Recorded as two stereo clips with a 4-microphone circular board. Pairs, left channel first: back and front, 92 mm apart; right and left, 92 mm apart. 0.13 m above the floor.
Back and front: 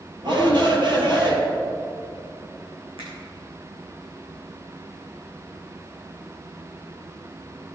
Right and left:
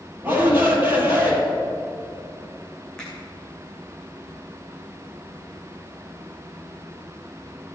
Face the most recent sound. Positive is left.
turn(degrees=-5)